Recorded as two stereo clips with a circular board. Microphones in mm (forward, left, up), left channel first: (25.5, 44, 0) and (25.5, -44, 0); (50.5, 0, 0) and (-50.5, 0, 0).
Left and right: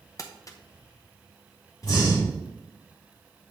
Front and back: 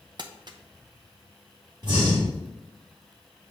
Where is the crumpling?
135° left, 0.7 m.